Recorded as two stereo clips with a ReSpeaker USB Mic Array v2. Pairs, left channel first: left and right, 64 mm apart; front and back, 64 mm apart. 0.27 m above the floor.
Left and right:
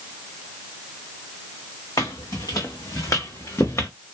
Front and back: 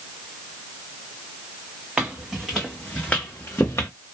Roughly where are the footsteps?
Left.